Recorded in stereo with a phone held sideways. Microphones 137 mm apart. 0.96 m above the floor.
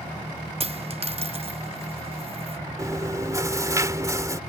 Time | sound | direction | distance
0.6 | a dropped coin | 45° right (ahead or behind) | ?
2.8 | chewing | 25° right (ahead or behind) | ?